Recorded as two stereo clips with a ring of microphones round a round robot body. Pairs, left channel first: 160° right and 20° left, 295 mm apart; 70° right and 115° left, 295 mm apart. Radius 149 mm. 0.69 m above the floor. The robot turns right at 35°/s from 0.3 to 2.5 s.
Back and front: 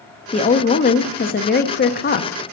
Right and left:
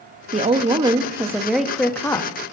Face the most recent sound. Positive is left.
turn(degrees=-130)